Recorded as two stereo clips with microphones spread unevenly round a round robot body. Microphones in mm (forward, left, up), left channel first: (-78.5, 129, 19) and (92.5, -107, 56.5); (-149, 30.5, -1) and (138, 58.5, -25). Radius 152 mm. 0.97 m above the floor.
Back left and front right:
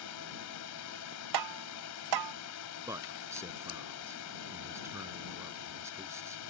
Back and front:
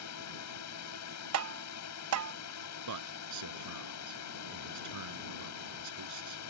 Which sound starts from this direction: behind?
A drone, at 0.0 s.